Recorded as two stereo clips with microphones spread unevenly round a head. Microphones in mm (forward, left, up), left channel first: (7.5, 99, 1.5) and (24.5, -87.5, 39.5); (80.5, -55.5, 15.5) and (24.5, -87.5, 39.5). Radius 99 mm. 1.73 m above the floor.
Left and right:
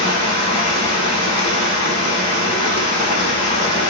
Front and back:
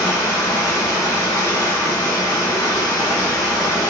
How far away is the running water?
About 1.2 m.